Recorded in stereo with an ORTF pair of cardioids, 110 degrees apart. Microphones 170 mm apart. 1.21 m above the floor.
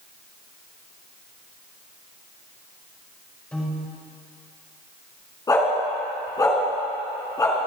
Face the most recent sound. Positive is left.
turn(degrees=20)